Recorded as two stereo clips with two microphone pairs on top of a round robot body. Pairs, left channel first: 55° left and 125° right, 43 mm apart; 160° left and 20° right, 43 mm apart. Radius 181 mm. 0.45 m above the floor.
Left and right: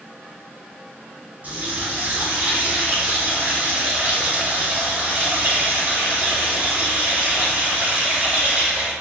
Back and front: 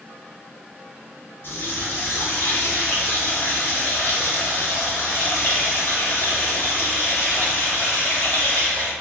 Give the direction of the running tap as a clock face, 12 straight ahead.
6 o'clock.